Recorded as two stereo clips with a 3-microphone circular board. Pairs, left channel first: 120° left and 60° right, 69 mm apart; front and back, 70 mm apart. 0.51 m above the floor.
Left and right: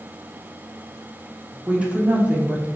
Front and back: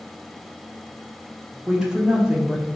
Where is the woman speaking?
115° right, 0.8 m.